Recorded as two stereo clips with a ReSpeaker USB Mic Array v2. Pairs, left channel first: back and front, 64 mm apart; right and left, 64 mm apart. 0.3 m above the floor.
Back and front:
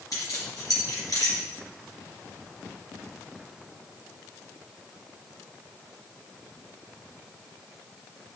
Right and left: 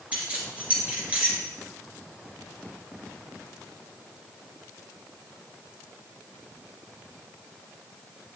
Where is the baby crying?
No baby crying in this recording.